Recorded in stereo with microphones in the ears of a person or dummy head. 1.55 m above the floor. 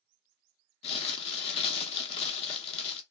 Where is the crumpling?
30° left (ahead or behind), 0.9 m.